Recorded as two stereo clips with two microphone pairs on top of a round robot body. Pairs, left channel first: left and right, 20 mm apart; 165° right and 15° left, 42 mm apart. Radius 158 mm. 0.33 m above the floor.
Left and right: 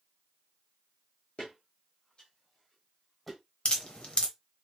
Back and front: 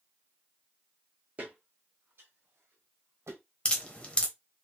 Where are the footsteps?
65° left, 1.5 m; by 3.4 s straight ahead, 1.3 m.